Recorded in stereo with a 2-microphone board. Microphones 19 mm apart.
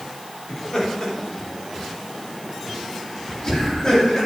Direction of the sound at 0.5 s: 45° left (ahead or behind).